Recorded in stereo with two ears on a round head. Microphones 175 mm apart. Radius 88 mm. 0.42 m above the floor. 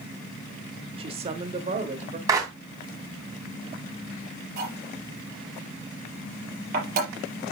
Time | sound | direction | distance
1.0 | a man speaking | 30° right (ahead or behind) | 0.9 m
2.3 | a clap | 20° right (ahead or behind) | 3 m
4.6 | cutlery clinking | 45° right (ahead or behind) | 5 m